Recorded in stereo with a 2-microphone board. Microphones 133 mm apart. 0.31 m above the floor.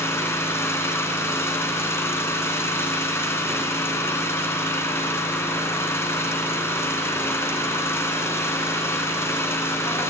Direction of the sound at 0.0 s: 15° left (ahead or behind).